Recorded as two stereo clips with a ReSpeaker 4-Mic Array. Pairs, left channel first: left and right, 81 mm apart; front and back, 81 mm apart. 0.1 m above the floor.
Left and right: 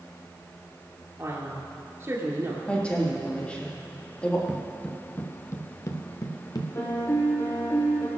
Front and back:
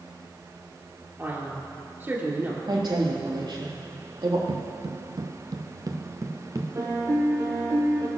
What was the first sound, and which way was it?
A man speaking, 130° right.